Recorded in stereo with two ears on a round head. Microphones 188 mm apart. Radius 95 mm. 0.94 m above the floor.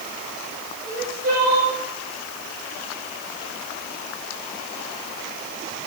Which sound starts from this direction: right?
Crying, at 0.8 s.